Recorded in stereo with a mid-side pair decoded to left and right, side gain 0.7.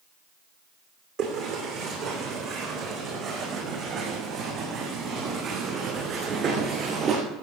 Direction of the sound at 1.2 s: 65° right.